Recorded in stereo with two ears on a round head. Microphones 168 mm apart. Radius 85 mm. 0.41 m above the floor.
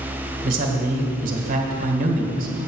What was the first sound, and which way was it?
A man speaking, 45° right (ahead or behind).